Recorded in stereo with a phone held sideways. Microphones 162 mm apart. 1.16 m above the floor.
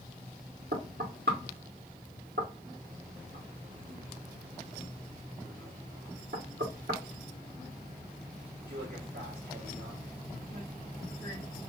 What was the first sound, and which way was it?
Knocking, 80° right.